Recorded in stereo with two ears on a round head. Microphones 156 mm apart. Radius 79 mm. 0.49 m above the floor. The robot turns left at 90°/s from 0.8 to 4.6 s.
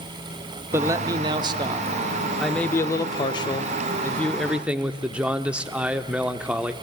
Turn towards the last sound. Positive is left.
turn(degrees=-10)  # may be behind; listen again after turning